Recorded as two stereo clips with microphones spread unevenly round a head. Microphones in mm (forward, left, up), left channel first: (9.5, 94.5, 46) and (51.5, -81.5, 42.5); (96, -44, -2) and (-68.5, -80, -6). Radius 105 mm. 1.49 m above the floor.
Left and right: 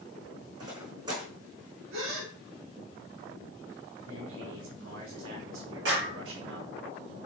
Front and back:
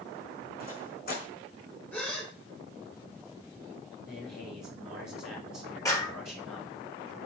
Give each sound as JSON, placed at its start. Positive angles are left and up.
{"t": 0.6, "sound": "footsteps", "azimuth_deg": -10, "distance_m": 4.0}
{"t": 1.9, "sound": "a gasp", "azimuth_deg": -65, "distance_m": 3.5}
{"t": 4.1, "sound": "a man speaking", "azimuth_deg": -65, "distance_m": 3.5}
{"t": 5.8, "sound": "a clap", "azimuth_deg": -60, "distance_m": 4.0}